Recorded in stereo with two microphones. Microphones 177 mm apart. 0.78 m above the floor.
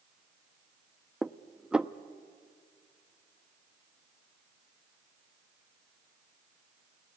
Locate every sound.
1.2 s dishes clattering: 5° right (ahead or behind), 0.6 m